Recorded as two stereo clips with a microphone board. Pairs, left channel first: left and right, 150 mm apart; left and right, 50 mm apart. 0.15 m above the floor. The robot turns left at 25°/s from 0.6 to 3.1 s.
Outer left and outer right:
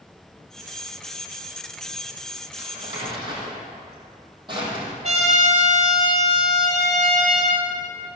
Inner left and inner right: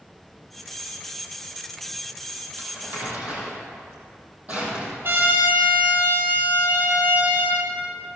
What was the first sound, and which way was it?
Crumpling, 45° right (ahead or behind).